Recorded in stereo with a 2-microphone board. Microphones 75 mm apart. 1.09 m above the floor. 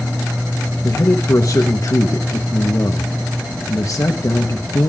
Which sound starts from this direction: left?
A man speaking, at 0.8 s.